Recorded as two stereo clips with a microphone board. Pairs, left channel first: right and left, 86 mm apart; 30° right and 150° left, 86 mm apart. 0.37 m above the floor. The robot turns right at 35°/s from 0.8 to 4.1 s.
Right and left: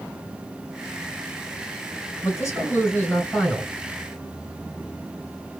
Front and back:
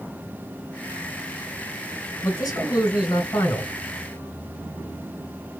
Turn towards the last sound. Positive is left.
turn(degrees=5)